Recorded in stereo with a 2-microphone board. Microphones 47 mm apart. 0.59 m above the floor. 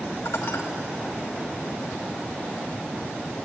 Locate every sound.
0.2 s dishes clattering: 80° left, 2 m